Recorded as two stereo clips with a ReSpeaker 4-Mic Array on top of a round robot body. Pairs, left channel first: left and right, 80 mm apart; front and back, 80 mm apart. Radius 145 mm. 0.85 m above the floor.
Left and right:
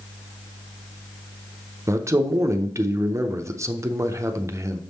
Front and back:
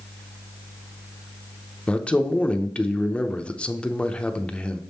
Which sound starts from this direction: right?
A man speaking, at 1.9 s.